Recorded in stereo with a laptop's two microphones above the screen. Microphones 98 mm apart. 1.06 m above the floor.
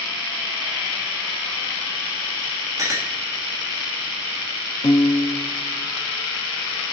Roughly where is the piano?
Left.